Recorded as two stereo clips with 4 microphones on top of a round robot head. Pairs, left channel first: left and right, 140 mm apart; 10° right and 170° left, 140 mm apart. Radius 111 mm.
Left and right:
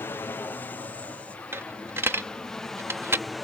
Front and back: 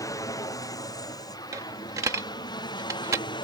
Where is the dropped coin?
135° right.